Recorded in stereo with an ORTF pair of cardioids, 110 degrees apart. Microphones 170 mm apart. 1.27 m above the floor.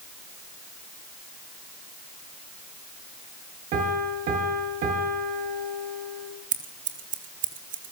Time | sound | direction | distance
3.7 | a piano | 70° right | 6 m
6.5 | scissors | 60° right | 3 m